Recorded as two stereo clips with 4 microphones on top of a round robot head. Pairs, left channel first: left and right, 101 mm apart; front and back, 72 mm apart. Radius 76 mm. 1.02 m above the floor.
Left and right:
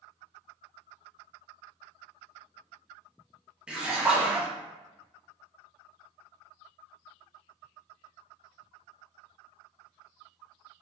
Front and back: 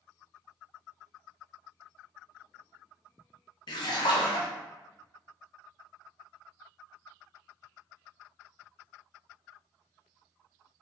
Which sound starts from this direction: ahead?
A splash, at 3.7 s.